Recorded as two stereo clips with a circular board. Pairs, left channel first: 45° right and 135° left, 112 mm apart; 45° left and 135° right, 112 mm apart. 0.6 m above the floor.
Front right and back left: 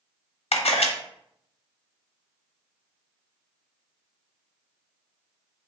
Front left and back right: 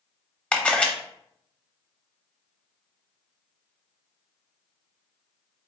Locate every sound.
0.5 s a camera shutter: 35° right, 0.7 m